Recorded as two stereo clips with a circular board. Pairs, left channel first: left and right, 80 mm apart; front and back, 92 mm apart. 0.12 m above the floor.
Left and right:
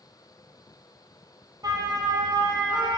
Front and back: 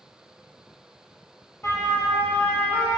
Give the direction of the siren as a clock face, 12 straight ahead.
2 o'clock.